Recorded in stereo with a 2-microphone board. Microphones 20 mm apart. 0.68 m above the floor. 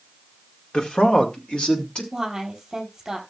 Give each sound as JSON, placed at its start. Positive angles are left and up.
{"t": 0.7, "sound": "a man speaking", "side_deg": 65, "distance_m": 1.9}
{"t": 2.1, "sound": "a woman speaking", "side_deg": -30, "distance_m": 4.0}